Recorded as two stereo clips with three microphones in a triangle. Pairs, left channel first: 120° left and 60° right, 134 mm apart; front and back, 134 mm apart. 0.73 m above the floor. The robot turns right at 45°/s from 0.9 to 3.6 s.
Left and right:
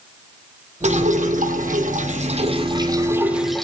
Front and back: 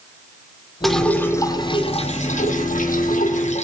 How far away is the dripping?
About 4.5 m.